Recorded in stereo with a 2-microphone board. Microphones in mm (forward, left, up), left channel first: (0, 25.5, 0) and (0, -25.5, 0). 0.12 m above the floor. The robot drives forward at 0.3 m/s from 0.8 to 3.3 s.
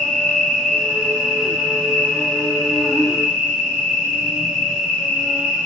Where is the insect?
5° left (ahead or behind), 2.5 m.